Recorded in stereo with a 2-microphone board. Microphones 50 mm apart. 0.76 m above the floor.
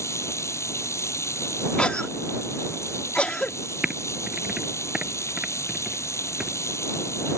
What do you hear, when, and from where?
0.0 s running water: 80° left
1.8 s a cough: 25° left (ahead or behind)
3.8 s typing on a keyboard: 15° right (ahead or behind)